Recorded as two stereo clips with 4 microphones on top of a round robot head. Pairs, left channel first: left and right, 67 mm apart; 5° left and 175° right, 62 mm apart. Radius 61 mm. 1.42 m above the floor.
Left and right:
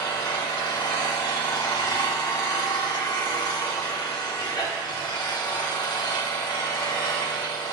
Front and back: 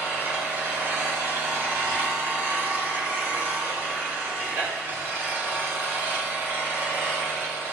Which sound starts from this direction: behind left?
An engine running, at 0.0 s.